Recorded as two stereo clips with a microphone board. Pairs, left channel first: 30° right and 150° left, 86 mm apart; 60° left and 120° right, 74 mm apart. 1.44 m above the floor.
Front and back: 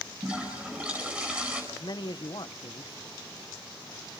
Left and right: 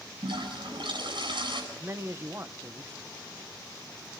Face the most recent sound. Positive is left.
turn(degrees=-65)